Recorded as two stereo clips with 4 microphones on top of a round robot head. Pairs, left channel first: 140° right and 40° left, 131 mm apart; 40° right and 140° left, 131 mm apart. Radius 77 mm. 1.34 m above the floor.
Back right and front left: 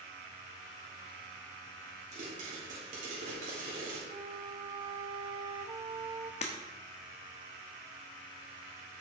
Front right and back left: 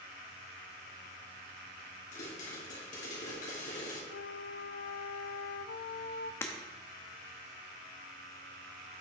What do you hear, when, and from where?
2.1 s a pop: straight ahead, 3 m
4.1 s a flute: 30° right, 0.5 m
6.4 s breaking glass: 105° right, 0.9 m